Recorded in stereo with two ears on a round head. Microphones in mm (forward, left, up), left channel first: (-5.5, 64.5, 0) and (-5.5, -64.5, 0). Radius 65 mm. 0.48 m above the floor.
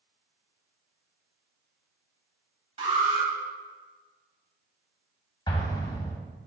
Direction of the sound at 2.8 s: 40° right (ahead or behind).